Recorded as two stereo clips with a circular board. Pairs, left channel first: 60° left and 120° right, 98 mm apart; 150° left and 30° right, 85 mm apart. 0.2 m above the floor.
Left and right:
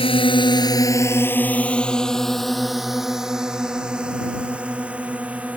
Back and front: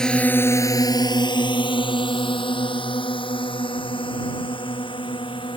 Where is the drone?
70° left; by 5.6 s 165° left.